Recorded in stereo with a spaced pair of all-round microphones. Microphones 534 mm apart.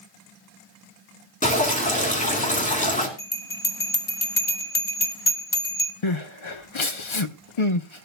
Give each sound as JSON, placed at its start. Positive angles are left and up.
{"t": 1.4, "sound": "dripping", "side_deg": 15, "distance_m": 3.0}
{"t": 3.2, "sound": "a bell", "side_deg": 60, "distance_m": 1.6}
{"t": 6.0, "sound": "crying", "side_deg": 60, "distance_m": 0.9}